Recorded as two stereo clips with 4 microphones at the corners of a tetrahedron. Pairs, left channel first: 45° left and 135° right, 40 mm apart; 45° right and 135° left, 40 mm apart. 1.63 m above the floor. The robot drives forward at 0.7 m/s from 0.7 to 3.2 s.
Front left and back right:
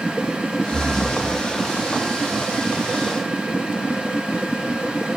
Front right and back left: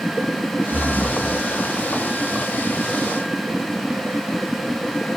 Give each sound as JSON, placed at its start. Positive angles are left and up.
{"t": 0.7, "sound": "breathing", "azimuth_deg": -65, "distance_m": 0.6}